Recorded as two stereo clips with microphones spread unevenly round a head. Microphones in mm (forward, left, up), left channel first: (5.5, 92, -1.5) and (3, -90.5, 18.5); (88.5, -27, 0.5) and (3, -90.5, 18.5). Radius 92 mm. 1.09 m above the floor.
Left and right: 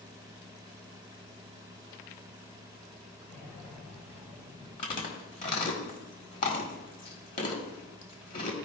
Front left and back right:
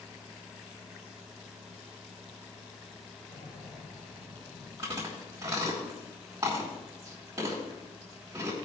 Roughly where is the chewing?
Behind left.